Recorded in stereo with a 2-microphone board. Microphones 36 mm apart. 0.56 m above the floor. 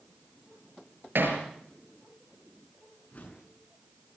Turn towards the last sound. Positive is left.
turn(degrees=45)  # may be behind; listen again after turning